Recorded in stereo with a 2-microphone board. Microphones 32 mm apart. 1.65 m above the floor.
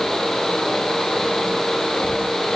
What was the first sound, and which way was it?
Only background noise.